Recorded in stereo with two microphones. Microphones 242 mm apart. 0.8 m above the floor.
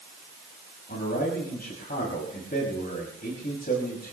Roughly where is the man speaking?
Left.